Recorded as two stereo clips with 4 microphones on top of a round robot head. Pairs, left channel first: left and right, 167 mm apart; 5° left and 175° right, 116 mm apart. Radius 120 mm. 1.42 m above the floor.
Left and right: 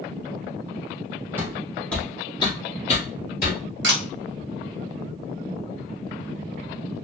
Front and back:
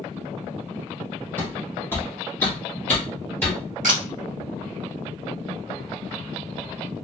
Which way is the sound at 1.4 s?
40° right.